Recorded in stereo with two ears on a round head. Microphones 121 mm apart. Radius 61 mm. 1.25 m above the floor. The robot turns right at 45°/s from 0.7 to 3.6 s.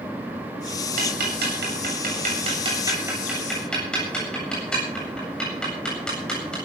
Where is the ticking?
70° right (ahead or behind), 8 m; by 6.5 s 5° left (ahead or behind), 8 m.